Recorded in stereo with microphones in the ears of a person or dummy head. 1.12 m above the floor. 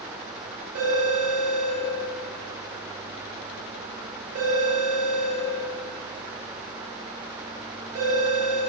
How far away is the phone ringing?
About 0.9 m.